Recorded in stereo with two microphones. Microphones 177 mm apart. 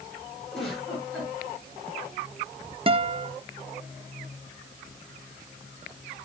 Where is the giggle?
5° left (ahead or behind), 5 m.